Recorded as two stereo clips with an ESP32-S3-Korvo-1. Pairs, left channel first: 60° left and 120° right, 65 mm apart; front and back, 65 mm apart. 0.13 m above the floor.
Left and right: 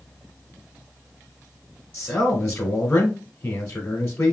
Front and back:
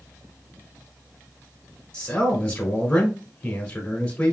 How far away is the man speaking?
About 1.1 m.